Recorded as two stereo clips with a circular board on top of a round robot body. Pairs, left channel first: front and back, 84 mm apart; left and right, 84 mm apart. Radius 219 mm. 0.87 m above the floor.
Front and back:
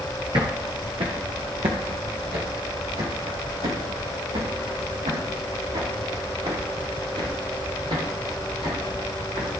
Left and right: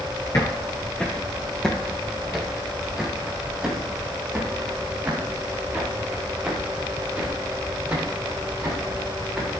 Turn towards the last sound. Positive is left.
turn(degrees=-160)